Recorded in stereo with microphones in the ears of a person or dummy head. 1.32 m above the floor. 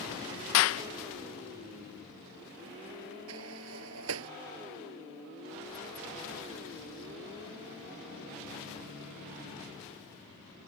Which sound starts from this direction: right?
A sliding door, at 3.3 s.